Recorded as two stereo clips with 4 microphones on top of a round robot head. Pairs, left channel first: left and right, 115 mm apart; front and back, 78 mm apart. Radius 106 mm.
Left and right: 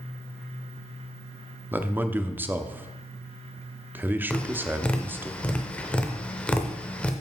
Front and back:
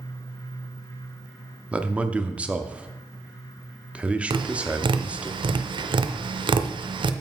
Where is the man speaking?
135° right, 0.8 m.